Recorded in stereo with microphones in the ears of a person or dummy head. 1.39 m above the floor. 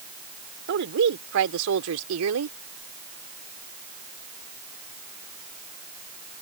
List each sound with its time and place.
0.7 s a woman speaking: 65° right (ahead or behind); by 2.6 s 85° right